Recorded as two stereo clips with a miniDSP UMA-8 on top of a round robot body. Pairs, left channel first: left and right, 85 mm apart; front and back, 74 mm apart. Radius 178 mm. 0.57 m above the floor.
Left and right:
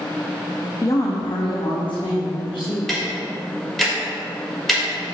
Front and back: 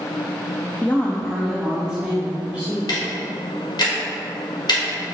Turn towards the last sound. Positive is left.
turn(degrees=5)